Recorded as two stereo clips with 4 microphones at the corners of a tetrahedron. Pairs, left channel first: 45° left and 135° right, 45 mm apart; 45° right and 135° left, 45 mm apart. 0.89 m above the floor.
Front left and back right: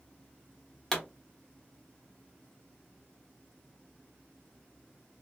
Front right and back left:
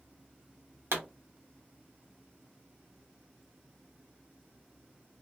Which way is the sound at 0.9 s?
125° left.